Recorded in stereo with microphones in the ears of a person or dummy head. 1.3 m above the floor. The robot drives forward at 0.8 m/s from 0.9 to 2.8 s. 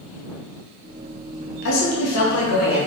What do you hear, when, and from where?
1.6 s a woman speaking: 65° left (ahead or behind), 1.1 m